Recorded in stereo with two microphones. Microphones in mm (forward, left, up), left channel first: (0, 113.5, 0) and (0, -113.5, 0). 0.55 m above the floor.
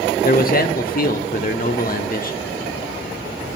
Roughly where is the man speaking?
Left.